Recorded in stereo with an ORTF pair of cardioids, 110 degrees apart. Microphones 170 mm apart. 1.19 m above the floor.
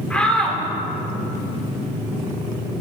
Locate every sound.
0.1 s a shout: 5° left, 3.5 m